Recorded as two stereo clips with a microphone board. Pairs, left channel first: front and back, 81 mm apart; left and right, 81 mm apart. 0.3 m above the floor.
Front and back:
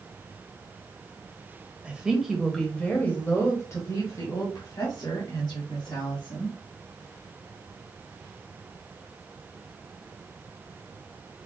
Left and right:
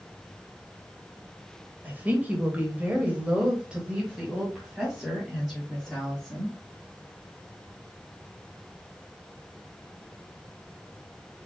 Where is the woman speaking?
125° right, 1.5 m; by 6.5 s 5° right, 3.5 m.